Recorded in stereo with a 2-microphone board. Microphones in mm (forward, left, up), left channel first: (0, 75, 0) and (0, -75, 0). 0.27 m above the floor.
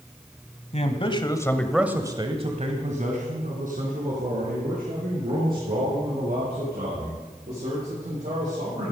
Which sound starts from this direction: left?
A man speaking, at 0.7 s.